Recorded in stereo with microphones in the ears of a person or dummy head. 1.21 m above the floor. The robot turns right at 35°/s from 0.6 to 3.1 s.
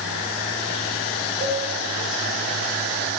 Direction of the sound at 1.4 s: 20° left (ahead or behind).